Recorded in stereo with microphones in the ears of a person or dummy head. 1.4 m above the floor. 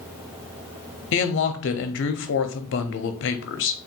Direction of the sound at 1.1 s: 60° left (ahead or behind).